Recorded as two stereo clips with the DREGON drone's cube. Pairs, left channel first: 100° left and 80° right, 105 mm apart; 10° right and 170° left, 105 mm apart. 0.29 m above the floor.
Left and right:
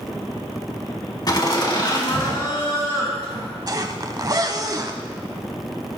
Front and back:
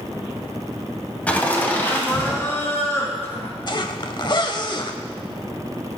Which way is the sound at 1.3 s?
60° left.